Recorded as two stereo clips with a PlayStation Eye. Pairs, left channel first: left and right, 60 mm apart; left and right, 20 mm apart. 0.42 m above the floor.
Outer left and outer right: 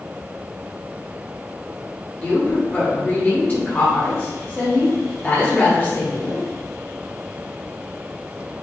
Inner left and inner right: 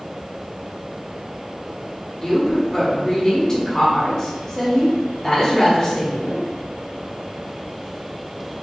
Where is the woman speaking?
30° left (ahead or behind), 1.0 m.